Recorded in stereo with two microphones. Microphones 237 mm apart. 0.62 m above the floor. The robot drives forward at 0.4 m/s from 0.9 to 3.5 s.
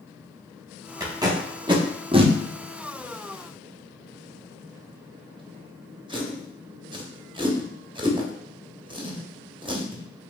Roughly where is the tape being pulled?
Centre.